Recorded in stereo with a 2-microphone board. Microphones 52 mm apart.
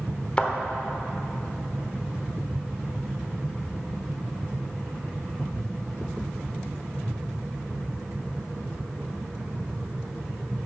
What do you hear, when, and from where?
0.4 s a thud: 20° left (ahead or behind), 1.1 m